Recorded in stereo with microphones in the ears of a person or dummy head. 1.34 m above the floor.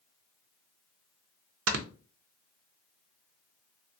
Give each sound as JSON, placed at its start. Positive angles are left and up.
{"t": 1.7, "sound": "snoring", "side_deg": -75, "distance_m": 0.6}